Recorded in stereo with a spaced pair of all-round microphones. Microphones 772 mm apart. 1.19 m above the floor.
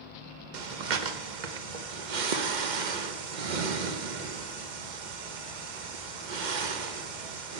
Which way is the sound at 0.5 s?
70° right (ahead or behind).